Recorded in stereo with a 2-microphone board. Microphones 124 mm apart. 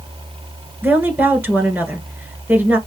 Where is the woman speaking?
15° right (ahead or behind), 1.7 m.